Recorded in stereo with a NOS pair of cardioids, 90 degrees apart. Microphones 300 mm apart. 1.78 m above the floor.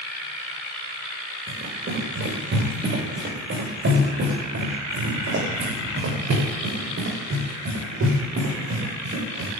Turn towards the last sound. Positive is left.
turn(degrees=-60)